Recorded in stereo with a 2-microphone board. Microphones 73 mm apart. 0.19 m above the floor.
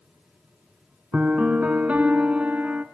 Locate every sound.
1.1 s a piano: 20° right (ahead or behind), 0.5 m